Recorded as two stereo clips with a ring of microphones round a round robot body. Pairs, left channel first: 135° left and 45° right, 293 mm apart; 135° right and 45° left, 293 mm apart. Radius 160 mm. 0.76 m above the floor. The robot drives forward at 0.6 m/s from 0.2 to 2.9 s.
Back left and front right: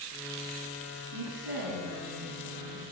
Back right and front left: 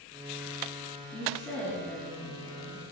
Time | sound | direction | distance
1.1 | a woman speaking | 50° right | 5.5 m